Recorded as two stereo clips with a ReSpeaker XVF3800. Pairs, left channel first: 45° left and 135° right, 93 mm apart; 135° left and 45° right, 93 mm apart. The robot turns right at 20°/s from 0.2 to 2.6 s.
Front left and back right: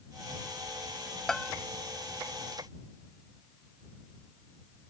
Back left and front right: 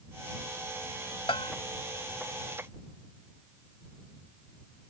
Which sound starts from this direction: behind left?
A bell, at 1.3 s.